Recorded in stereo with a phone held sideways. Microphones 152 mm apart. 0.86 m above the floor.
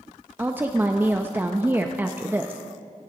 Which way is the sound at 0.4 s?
15° right (ahead or behind).